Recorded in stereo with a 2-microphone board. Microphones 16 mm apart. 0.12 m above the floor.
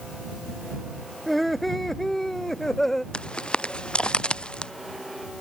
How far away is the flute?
I don't hear a flute.